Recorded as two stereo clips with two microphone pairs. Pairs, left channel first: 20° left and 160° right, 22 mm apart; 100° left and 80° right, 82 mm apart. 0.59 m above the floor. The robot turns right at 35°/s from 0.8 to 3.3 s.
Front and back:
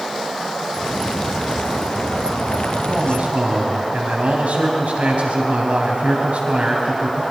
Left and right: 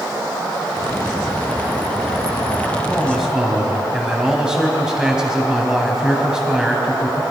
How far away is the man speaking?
About 4 m.